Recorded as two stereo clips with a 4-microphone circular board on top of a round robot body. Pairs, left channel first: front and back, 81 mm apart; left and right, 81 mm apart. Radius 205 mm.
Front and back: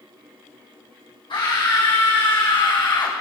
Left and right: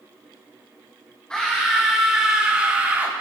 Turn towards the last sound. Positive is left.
turn(degrees=-25)